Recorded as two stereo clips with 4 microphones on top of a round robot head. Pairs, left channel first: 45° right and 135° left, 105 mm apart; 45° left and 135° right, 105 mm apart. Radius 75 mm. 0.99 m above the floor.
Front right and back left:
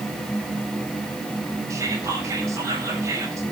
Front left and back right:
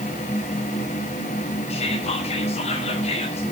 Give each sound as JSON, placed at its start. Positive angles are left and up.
{"t": 1.7, "sound": "whispering", "azimuth_deg": 75, "distance_m": 5.5}